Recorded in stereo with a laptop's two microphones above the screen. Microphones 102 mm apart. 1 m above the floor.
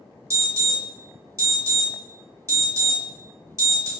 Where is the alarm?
30° right (ahead or behind), 1.1 m.